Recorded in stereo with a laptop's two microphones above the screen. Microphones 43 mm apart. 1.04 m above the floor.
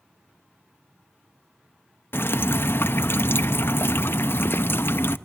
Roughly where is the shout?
I don't hear a shout.